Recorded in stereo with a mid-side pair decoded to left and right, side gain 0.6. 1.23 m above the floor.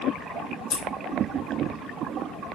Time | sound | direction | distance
0.7 | scissors | 60° left | 1.2 m